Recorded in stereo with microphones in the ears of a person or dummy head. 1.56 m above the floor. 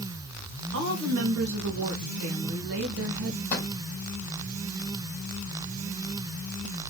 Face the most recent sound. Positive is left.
turn(degrees=40)  # may be behind; listen again after turning